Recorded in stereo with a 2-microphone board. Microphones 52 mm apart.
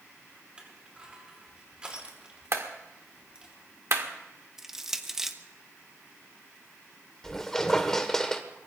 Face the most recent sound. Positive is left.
turn(degrees=10)  # may be behind; listen again after turning